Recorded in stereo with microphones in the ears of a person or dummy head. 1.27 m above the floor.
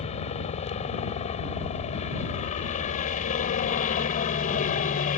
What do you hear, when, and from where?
0.0 s a helicopter: 30° left (ahead or behind); by 5.2 s 40° left (ahead or behind)